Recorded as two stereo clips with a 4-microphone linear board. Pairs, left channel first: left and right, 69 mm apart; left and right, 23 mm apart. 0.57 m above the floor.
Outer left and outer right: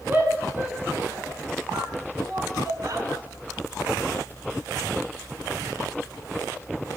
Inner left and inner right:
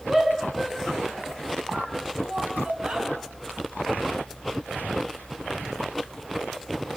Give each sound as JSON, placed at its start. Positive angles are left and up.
{"t": 0.1, "sound": "a shout", "side_deg": -30, "distance_m": 8.0}